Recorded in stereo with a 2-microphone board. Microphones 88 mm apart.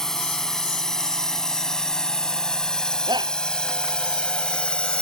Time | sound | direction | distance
0.0 | a drone | 5° left (ahead or behind) | ?
3.1 | a shout | 55° right (ahead or behind) | ?